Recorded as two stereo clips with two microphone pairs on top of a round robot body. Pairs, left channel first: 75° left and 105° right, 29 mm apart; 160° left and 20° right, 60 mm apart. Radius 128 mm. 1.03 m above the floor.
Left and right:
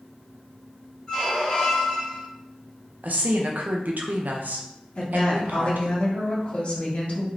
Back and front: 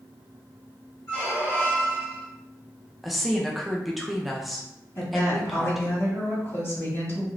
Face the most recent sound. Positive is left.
turn(degrees=115)